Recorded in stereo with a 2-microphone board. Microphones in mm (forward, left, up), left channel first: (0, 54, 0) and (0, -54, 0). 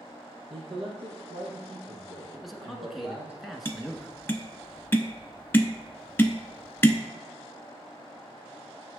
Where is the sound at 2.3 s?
Centre (ahead or behind), 1.2 m.